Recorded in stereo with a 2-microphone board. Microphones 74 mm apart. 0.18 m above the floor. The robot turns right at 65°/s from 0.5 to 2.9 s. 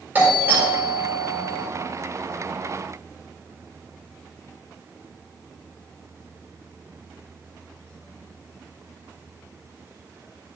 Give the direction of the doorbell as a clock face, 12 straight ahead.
1 o'clock.